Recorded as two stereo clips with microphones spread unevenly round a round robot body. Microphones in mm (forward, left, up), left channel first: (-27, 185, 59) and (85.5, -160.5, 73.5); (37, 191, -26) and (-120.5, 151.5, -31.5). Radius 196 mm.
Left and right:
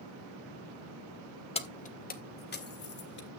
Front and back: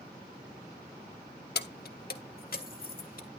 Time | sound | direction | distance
1.6 | keys jangling | 35° left | 1.0 m